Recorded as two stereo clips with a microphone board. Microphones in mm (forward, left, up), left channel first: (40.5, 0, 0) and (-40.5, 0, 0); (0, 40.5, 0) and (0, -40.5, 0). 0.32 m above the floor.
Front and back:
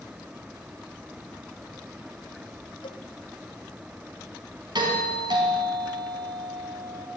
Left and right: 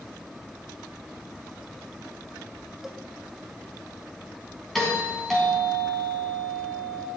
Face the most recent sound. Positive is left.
turn(degrees=180)